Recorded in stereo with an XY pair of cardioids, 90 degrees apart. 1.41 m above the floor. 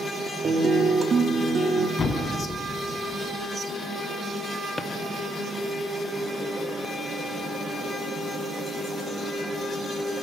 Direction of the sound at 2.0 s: 50° left.